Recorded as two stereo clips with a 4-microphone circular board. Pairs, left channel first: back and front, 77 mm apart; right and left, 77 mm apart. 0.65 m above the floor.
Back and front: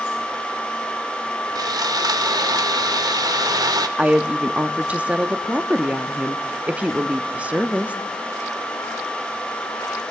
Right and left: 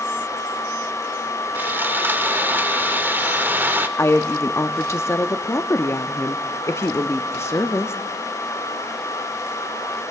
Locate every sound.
1.6 s sawing: 25° left, 0.6 m
4.0 s a woman speaking: 60° right, 0.7 m